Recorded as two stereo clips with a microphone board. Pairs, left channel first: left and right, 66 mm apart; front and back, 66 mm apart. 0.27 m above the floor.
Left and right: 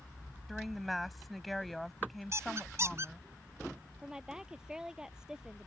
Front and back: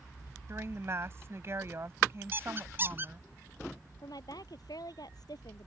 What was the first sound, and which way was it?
A woman speaking, straight behind.